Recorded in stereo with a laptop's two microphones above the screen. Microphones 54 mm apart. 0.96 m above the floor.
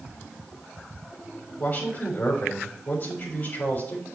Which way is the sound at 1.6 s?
45° left (ahead or behind).